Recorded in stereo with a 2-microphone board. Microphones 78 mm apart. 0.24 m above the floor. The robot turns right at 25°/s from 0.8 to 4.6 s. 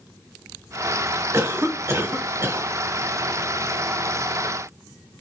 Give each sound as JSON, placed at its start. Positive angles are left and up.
{"t": 1.3, "sound": "a cough", "azimuth_deg": -85, "distance_m": 1.3}